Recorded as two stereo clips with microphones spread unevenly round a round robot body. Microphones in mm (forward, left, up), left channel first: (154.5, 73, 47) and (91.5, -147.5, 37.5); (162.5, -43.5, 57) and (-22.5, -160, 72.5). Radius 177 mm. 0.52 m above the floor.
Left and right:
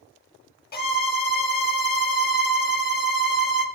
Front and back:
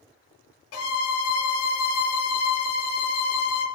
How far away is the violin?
About 0.7 m.